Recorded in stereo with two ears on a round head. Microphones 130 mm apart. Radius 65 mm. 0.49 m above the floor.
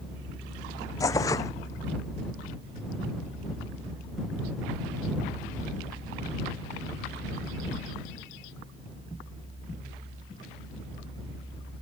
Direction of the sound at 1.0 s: 25° left (ahead or behind).